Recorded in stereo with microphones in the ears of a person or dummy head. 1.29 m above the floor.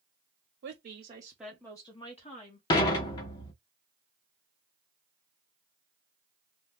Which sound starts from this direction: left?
Dishes clattering, at 2.7 s.